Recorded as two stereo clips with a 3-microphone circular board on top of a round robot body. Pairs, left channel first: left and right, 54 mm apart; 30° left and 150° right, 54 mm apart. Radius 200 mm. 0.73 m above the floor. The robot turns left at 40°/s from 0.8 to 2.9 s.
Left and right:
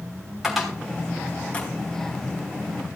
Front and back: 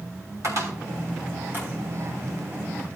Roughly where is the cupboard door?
Behind.